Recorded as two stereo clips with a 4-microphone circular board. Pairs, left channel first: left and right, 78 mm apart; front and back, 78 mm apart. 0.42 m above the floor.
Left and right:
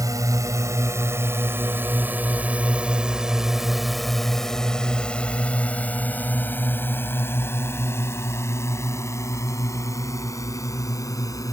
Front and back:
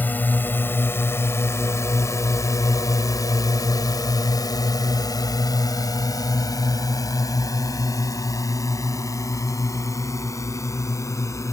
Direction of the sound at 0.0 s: 65° right.